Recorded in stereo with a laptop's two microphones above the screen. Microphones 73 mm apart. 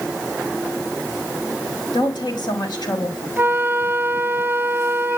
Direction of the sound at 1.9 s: 75° left (ahead or behind).